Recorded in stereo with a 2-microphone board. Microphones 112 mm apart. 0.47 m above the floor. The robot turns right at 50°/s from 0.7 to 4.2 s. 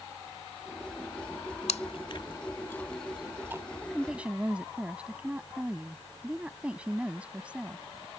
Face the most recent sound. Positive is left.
turn(degrees=-10)  # may be behind; listen again after turning